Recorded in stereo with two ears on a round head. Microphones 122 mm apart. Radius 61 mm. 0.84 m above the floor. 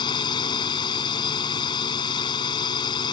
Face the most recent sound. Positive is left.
turn(degrees=35)  # may be behind; listen again after turning